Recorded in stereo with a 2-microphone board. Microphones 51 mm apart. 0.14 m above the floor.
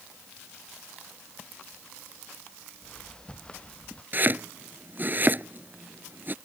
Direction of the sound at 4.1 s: 40° right (ahead or behind).